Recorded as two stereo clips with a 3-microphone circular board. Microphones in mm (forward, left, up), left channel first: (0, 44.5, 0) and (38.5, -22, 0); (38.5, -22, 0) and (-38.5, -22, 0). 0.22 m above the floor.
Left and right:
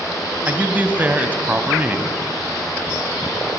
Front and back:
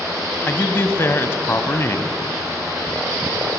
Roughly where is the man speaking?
Ahead.